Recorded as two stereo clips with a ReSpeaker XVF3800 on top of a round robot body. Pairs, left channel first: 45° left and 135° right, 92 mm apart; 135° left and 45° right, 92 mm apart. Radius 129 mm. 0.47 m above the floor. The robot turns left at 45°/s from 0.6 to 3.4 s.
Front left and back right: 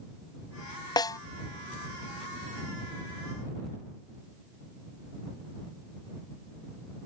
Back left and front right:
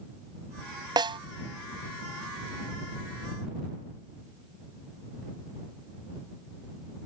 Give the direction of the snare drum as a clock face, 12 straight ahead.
12 o'clock.